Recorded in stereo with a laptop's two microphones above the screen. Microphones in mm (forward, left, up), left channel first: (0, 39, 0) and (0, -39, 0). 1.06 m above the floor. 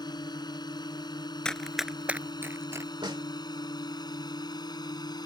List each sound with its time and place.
0.0 s a drone: 65° left (ahead or behind); by 5.3 s 60° left (ahead or behind)
1.4 s running footsteps: 10° left (ahead or behind); by 2.9 s 40° right (ahead or behind)
3.0 s a snare drum: 80° right